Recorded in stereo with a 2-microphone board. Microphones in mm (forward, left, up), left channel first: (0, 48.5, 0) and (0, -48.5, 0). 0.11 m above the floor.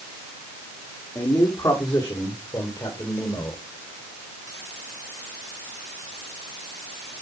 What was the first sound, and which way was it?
A man speaking, 40° left (ahead or behind).